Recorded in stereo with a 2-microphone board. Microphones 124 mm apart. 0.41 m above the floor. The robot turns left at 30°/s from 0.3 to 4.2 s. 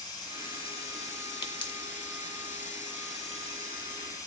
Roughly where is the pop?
Left.